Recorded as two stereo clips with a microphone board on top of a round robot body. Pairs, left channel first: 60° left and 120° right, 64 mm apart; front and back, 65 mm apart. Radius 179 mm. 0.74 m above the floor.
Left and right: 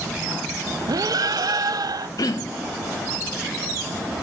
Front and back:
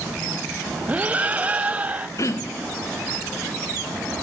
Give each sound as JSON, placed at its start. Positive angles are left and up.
{"t": 0.9, "sound": "breathing", "azimuth_deg": -115, "distance_m": 0.8}
{"t": 2.2, "sound": "throat clearing", "azimuth_deg": 35, "distance_m": 1.1}